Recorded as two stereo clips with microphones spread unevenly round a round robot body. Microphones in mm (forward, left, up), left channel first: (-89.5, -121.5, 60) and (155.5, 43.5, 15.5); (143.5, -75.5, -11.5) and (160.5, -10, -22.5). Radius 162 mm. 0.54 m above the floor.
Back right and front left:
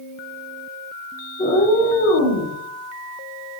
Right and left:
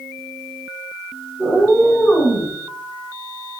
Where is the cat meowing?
140° left, 0.6 m; by 2.5 s 170° left, 1.1 m.